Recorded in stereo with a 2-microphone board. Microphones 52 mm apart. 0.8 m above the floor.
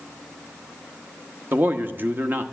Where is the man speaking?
40° right (ahead or behind), 0.9 m.